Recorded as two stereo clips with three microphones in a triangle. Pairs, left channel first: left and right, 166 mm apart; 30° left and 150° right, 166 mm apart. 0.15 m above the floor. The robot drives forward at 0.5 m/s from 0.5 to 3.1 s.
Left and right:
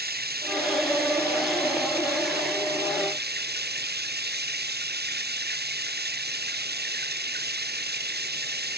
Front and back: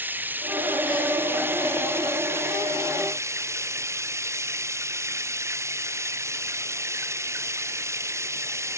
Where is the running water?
70° right; by 8.8 s 75° right.